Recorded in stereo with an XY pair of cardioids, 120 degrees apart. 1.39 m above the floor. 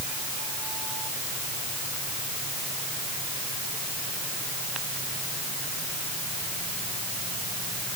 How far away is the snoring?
I don't hear snoring.